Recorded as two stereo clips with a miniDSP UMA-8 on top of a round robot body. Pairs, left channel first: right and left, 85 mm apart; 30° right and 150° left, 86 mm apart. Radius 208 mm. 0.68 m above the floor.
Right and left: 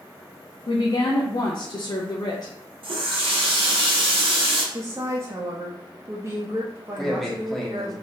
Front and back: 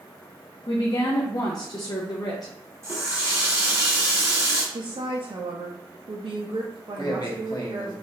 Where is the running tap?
95° left, 1.2 m.